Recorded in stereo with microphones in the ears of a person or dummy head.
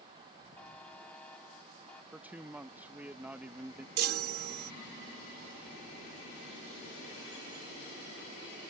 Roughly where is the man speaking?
Centre.